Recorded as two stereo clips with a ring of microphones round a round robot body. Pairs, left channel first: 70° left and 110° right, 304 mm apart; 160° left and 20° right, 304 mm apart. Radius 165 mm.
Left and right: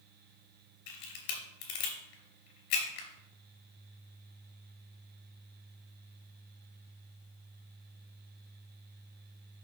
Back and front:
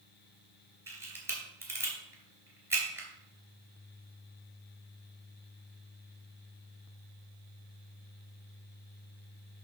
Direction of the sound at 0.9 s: 60° left.